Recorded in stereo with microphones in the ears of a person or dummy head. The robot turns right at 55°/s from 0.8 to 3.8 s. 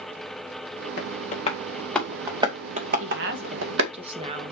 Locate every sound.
1.0 s tapping: 55° left (ahead or behind), 2.5 m; by 3.9 s 80° right, 2.5 m
3.0 s a woman speaking: 75° right, 1.7 m; by 4.5 s 30° right, 1.7 m